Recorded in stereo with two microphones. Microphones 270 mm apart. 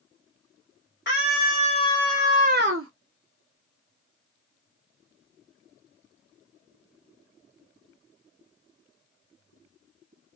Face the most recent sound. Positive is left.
turn(degrees=-60)  # may be behind; listen again after turning